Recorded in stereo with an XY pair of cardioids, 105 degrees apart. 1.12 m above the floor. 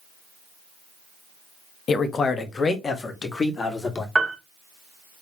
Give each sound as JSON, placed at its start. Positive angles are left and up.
{"t": 1.9, "sound": "a man speaking", "azimuth_deg": 45, "distance_m": 0.9}
{"t": 4.2, "sound": "a piano", "azimuth_deg": -20, "distance_m": 1.3}